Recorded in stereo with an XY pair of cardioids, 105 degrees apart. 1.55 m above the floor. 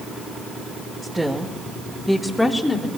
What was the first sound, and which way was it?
A woman speaking, 15° right.